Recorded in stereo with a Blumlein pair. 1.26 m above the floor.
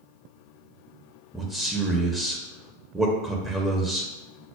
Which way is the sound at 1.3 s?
5° right.